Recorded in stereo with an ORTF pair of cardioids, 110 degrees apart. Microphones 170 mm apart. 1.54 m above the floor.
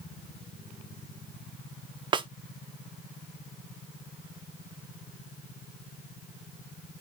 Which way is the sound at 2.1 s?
25° right.